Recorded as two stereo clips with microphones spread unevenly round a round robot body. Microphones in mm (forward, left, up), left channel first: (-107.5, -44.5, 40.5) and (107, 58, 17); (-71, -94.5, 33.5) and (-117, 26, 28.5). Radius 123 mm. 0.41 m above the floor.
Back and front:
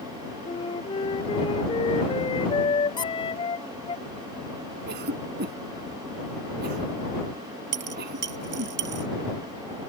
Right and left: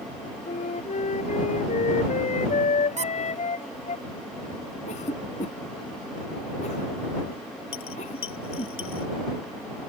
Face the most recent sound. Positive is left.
turn(degrees=-20)